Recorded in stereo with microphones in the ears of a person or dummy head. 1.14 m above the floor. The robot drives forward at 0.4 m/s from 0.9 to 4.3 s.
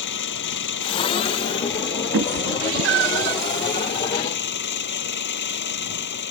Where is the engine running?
60° left (ahead or behind); by 6.3 s 55° left (ahead or behind).